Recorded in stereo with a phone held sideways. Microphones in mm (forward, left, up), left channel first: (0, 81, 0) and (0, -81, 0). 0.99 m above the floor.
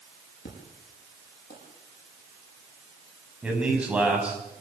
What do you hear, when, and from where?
0.5 s an explosion: 80° left, 7 m
3.4 s a man speaking: 10° right (ahead or behind), 6 m